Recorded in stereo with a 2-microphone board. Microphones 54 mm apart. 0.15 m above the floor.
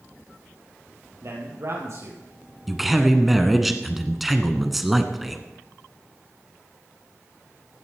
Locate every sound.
1.2 s a man speaking: 60° right (ahead or behind), 4 m
2.7 s a man speaking: 5° right (ahead or behind), 1.2 m